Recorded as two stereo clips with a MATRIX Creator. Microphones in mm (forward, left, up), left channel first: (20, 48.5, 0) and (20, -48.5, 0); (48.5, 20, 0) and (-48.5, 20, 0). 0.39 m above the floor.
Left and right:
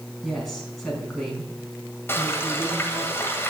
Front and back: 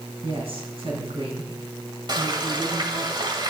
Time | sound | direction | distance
0.2 | a woman speaking | 175° left | 4 m
2.1 | frying | 150° left | 2.0 m